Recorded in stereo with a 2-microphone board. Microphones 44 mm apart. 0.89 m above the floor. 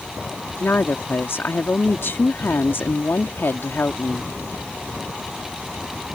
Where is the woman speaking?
55° left (ahead or behind).